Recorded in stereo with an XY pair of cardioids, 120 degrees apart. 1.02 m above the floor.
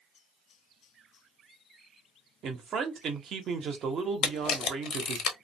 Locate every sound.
2.4 s a man speaking: 55° right, 0.8 m
4.2 s a camera shutter: 60° left, 0.8 m